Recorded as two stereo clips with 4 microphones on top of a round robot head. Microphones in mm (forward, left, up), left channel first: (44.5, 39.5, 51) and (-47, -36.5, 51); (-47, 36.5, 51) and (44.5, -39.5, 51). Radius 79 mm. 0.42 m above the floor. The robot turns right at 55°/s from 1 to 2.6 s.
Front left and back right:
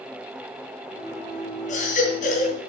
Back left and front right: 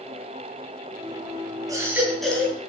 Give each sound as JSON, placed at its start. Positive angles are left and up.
{"t": 1.7, "sound": "a baby crying", "azimuth_deg": 20, "distance_m": 3.0}